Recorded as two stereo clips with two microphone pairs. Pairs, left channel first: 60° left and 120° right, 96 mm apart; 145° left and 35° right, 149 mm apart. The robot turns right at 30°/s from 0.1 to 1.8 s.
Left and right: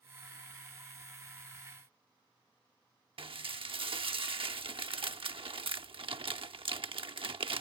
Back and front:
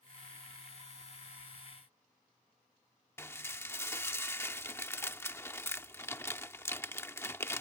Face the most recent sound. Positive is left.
turn(degrees=-140)